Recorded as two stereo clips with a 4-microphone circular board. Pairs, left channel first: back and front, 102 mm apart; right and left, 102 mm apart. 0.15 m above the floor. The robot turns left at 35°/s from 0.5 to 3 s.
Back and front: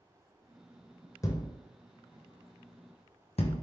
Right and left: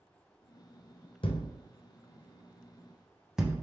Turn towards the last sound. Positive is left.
turn(degrees=175)